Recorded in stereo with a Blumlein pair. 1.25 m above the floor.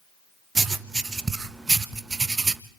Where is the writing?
15° right, 0.8 m.